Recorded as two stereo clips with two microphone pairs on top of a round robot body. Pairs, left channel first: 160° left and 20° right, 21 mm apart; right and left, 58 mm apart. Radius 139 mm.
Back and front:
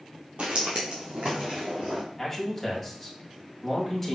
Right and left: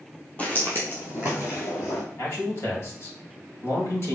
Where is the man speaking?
130° right, 2 m.